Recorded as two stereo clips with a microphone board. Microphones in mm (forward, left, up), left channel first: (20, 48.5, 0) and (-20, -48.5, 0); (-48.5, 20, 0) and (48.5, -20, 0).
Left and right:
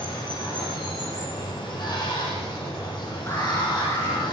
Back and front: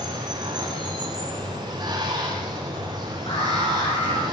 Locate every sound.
0.0 s running water: 25° left, 8 m
3.3 s an alarm: 130° left, 8.5 m